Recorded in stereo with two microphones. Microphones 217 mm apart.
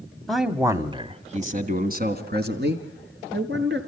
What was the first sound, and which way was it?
A man speaking, 5° left (ahead or behind).